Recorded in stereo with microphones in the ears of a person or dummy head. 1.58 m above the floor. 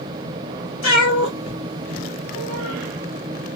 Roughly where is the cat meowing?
Left.